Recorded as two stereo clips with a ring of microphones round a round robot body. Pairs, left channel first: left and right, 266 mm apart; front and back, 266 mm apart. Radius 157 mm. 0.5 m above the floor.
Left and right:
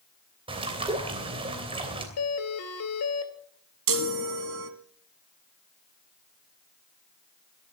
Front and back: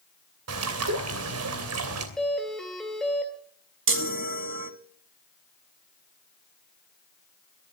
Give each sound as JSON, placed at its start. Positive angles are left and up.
{"t": 0.5, "sound": "a bird", "azimuth_deg": -160, "distance_m": 3.0}
{"t": 2.2, "sound": "a doorbell", "azimuth_deg": 90, "distance_m": 2.0}
{"t": 3.9, "sound": "a chime", "azimuth_deg": -135, "distance_m": 1.3}